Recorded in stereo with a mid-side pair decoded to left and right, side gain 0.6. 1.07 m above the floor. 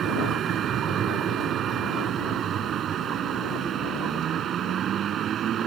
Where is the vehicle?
50° right.